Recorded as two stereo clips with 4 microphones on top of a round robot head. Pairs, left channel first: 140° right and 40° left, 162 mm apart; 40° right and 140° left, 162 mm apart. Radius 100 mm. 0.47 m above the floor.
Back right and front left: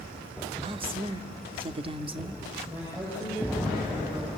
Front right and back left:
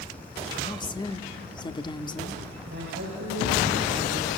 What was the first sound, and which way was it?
A woman speaking, 5° left.